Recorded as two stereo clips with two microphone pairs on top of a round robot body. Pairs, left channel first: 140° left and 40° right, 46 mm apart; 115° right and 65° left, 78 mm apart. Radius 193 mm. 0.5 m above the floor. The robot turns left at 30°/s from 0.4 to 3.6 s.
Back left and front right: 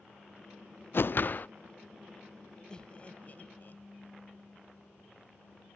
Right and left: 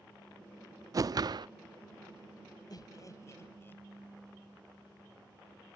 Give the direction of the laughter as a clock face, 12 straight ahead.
5 o'clock.